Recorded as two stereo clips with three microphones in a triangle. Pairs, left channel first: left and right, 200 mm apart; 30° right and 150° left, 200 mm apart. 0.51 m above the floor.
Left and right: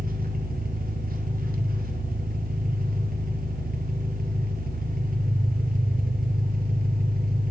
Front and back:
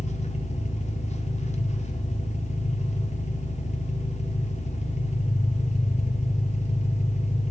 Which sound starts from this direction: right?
An engine running, at 0.0 s.